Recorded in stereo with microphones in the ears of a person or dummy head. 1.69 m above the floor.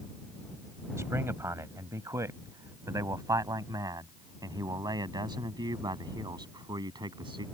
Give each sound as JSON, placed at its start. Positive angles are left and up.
{"t": 1.0, "sound": "a man speaking", "side_deg": -25}